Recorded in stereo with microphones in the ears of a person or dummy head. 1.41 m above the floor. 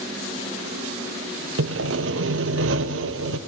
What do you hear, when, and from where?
1.6 s sawing: 75° right (ahead or behind), 0.8 m